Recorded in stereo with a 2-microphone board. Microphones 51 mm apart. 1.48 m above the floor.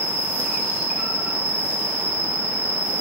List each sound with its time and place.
0.0 s an insect: 65° right (ahead or behind), 1.2 m